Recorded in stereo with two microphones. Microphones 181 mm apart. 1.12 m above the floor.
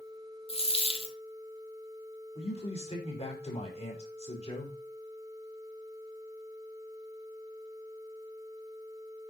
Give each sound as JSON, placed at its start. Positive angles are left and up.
{"t": 0.5, "sound": "a dropped coin", "side_deg": 30, "distance_m": 1.2}
{"t": 2.4, "sound": "a man speaking", "side_deg": 35, "distance_m": 4.5}